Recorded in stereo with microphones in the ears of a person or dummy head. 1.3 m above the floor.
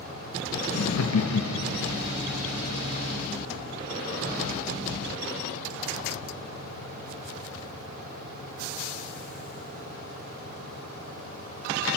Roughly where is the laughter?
Left.